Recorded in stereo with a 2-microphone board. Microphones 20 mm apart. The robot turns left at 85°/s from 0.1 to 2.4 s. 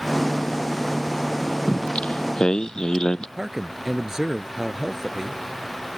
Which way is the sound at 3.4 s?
35° right (ahead or behind).